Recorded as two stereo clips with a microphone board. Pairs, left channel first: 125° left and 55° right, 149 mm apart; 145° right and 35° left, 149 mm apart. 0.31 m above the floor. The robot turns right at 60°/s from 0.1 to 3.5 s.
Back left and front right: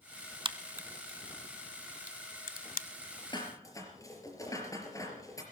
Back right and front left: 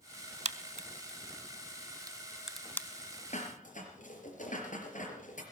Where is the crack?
Straight ahead, 0.9 m; by 2.9 s 145° left, 0.9 m.